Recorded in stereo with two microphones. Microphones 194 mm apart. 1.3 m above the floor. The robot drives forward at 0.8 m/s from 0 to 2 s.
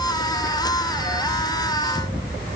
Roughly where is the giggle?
No giggle in this recording.